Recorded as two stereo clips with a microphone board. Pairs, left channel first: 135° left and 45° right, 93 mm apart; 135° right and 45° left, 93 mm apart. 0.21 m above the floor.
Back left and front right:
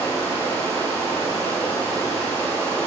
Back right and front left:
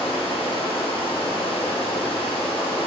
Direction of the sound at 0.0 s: 155° right.